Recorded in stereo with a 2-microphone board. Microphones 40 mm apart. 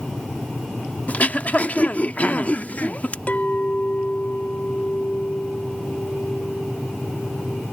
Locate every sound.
1.1 s throat clearing: 35° left (ahead or behind)
3.3 s a clink: 40° left (ahead or behind)